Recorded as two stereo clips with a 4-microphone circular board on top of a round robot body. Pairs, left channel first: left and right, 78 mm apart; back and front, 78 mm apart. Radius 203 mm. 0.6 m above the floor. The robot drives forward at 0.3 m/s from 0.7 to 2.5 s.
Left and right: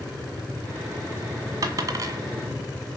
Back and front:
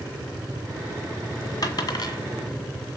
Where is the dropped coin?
135° right, 1.6 m; by 2.2 s 140° right, 1.7 m.